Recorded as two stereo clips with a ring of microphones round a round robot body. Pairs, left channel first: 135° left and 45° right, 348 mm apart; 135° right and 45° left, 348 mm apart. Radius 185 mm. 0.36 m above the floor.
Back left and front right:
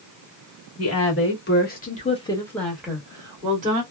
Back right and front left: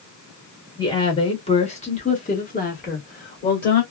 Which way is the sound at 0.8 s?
150° left.